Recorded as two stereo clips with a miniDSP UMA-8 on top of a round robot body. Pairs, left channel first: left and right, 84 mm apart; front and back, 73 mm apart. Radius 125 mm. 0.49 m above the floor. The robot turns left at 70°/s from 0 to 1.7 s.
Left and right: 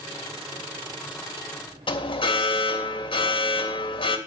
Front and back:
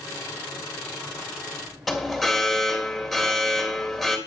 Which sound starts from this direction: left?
An alarm, at 1.9 s.